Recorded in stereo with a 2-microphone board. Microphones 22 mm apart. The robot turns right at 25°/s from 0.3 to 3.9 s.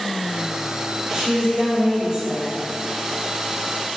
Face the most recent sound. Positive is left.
turn(degrees=-25)